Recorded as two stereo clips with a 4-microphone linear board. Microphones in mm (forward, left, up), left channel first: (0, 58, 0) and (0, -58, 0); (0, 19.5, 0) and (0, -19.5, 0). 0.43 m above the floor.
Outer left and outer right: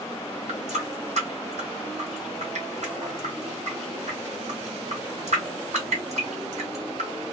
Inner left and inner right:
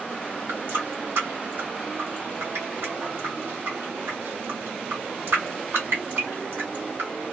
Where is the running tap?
75° right (ahead or behind), 1.6 m.